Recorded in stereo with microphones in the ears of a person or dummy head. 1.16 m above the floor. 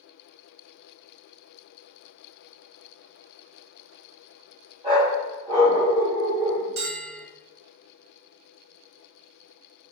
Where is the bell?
30° right (ahead or behind), 0.8 m.